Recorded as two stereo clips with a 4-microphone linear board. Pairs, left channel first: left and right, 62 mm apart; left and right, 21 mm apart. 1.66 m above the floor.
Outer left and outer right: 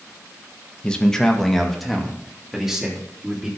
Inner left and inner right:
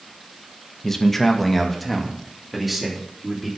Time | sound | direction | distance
0.8 | a man speaking | 15° left (ahead or behind) | 1.5 m